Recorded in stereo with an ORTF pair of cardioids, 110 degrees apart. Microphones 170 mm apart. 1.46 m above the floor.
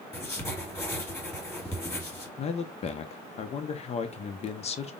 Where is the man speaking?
40° left, 0.8 m.